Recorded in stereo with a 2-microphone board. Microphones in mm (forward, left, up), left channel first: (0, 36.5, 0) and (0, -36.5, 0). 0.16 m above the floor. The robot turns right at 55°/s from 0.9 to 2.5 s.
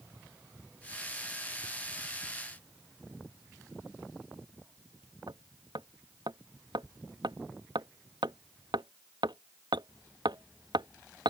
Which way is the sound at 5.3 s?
75° right (ahead or behind).